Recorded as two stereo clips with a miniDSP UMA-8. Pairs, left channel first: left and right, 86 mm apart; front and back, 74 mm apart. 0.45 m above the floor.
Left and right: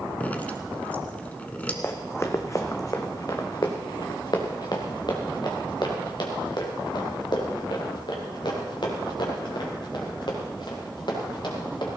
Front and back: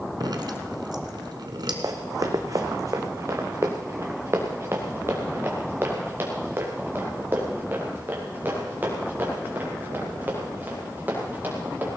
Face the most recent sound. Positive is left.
turn(degrees=115)